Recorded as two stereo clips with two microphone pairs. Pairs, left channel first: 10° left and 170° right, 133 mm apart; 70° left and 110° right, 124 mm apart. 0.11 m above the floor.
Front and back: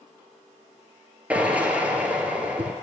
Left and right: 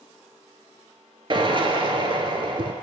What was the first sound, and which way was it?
A drill, 95° right.